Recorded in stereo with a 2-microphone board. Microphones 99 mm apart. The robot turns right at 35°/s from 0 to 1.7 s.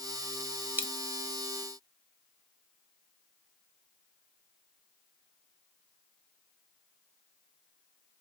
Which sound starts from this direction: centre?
A dropped coin, at 0.8 s.